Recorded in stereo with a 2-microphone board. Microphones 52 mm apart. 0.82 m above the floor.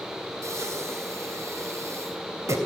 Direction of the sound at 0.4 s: 70° right (ahead or behind).